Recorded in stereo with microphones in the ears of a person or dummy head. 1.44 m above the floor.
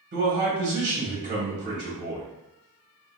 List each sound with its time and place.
0.1 s a man speaking: 50° right (ahead or behind), 1.3 m